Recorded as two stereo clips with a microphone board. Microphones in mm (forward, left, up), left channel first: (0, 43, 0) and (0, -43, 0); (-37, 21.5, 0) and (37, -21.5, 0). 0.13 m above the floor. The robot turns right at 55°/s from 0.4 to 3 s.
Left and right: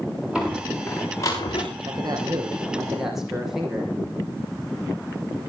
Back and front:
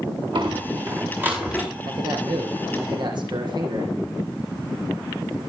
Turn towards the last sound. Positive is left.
turn(degrees=-5)